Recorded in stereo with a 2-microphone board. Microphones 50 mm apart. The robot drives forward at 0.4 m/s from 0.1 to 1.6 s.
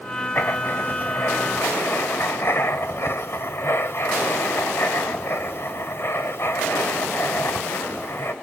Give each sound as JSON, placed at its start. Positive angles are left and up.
{"t": 0.3, "sound": "writing", "side_deg": 45, "distance_m": 1.9}